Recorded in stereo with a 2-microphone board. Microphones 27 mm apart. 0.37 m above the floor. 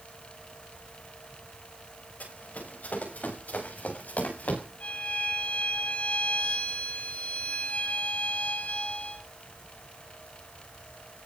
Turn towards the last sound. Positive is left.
turn(degrees=85)